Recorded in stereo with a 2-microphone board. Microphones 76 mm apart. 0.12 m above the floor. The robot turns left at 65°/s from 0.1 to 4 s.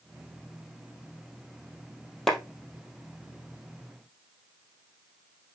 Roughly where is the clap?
Centre.